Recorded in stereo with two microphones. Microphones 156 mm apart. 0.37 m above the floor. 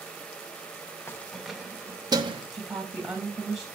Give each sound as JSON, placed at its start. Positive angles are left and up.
{"t": 1.1, "sound": "keys jangling", "side_deg": 15, "distance_m": 0.7}
{"t": 2.5, "sound": "a woman speaking", "side_deg": 0, "distance_m": 2.0}